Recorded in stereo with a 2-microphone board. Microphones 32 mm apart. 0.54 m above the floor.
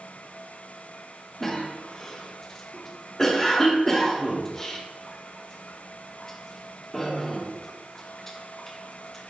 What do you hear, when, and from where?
1.4 s a cough: 10° left (ahead or behind), 0.7 m